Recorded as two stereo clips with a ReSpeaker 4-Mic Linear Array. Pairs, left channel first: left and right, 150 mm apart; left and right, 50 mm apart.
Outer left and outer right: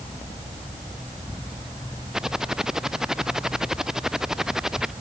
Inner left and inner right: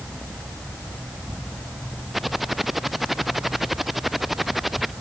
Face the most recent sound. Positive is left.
turn(degrees=-5)  # may be behind; listen again after turning